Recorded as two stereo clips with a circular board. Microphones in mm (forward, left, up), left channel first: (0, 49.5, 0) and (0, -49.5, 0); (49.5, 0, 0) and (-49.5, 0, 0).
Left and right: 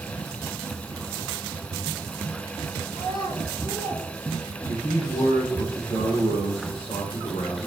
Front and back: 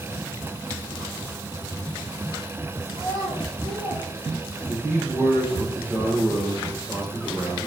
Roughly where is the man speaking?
Left.